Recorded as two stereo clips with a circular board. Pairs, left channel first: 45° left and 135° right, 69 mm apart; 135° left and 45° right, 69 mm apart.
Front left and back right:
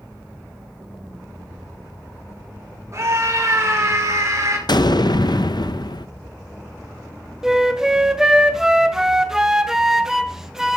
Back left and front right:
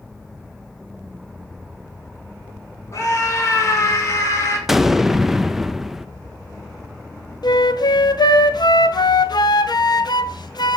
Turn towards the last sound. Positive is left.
turn(degrees=140)